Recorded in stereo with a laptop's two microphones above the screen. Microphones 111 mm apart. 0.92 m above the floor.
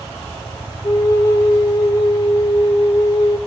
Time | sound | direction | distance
0.8 | a flute | 30° left (ahead or behind) | 1.1 m